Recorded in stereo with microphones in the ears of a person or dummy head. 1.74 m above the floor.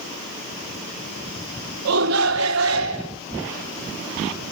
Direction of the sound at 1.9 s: 70° right (ahead or behind).